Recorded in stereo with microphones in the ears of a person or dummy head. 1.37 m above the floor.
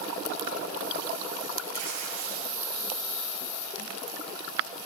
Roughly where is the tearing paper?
Right.